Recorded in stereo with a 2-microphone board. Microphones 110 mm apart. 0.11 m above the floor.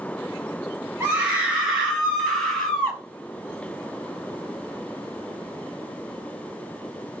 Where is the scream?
15° right (ahead or behind), 2 m; by 3.0 s 10° left (ahead or behind), 2.5 m.